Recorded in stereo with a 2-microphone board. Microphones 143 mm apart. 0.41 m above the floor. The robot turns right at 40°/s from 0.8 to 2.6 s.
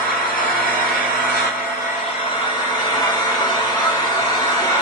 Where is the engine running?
75° left, 1.4 m; by 4.8 s 145° left, 1.4 m.